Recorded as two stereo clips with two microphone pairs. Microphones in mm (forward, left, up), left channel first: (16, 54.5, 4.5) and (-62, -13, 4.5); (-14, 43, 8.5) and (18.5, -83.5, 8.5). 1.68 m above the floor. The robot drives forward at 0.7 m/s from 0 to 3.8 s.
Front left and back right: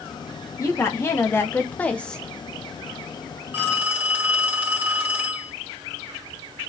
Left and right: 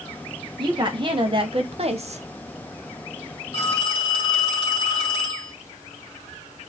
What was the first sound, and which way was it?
A woman speaking, 20° right.